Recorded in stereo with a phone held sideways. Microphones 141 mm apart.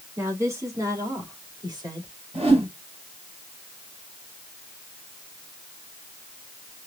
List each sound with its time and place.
0.2 s a woman speaking: 20° right (ahead or behind), 3 m; by 2.1 s 30° right (ahead or behind), 3.5 m
2.3 s a whoosh: 40° right (ahead or behind), 4.5 m